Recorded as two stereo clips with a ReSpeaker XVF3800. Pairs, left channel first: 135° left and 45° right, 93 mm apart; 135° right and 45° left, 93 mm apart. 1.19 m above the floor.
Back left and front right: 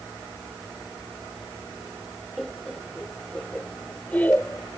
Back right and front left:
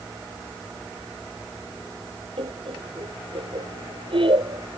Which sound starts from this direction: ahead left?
Laughter, at 2.4 s.